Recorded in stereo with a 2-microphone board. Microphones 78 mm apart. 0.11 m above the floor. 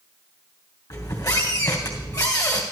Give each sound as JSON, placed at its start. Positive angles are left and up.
{"t": 0.9, "sound": "a squeak", "side_deg": 50, "distance_m": 2.5}